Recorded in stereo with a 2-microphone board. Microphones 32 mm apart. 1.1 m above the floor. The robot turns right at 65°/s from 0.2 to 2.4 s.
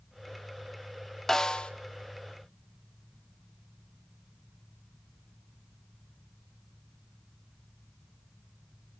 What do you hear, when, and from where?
1.3 s a snare drum: 15° left (ahead or behind), 0.9 m; by 1.7 s 35° left (ahead or behind), 0.9 m